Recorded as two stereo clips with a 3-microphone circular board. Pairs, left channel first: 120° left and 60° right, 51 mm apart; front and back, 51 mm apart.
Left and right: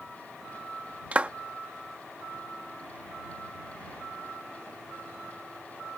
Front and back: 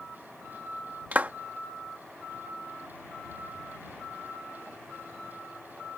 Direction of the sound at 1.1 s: 120° right.